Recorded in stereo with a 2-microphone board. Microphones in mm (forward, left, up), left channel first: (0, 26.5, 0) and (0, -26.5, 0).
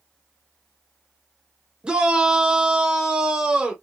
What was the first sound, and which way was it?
A shout, 20° right (ahead or behind).